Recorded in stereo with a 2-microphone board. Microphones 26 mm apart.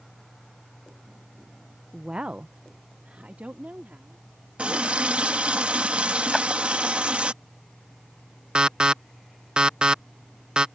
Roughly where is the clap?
Centre.